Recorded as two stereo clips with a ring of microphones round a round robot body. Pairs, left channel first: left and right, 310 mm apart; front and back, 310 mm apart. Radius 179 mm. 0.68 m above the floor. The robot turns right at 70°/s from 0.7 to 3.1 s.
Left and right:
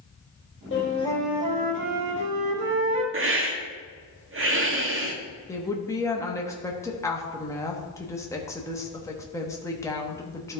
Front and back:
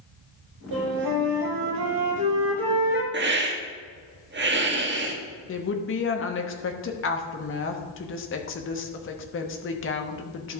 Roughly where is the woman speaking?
Ahead.